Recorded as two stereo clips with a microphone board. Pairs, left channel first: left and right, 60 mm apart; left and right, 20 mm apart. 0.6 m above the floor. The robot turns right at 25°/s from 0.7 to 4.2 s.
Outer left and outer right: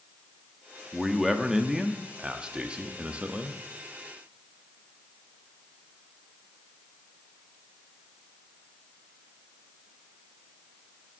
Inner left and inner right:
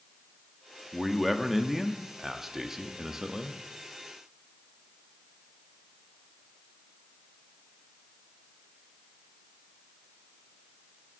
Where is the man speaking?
Centre (ahead or behind), 0.6 m; by 3.6 s 20° right (ahead or behind), 0.6 m.